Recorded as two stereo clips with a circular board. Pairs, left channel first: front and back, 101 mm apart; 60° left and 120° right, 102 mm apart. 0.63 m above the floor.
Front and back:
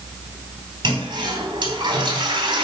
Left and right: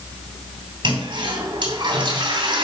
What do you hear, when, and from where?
0.8 s a toilet flushing: 145° right, 2.5 m